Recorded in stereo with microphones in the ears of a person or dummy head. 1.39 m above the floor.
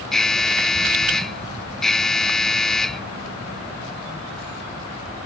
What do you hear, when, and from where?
0.1 s an alarm: centre (ahead or behind)